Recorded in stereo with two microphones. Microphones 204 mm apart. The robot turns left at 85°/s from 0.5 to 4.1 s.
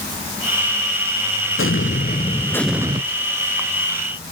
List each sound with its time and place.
1.6 s an explosion: 95° left, 0.6 m; by 3.0 s 30° right, 0.6 m